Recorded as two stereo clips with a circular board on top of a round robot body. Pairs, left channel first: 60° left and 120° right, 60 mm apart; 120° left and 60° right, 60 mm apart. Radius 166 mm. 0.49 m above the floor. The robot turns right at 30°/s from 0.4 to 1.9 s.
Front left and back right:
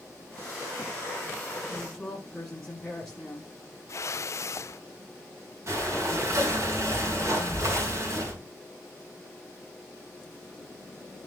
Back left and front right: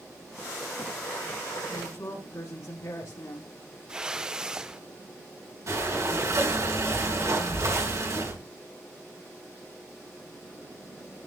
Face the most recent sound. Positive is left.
turn(degrees=-85)